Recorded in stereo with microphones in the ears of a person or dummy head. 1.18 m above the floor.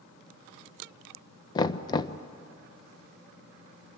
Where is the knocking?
20° left (ahead or behind), 0.5 m.